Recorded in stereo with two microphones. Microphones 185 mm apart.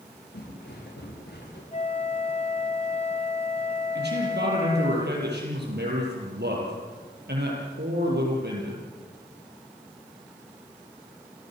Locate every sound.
0.3 s footsteps: 65° left (ahead or behind), 10 m; by 1.6 s 60° left (ahead or behind), 10.5 m
1.7 s a flute: 40° left (ahead or behind), 1.6 m
4.0 s a man speaking: 65° right (ahead or behind), 7.5 m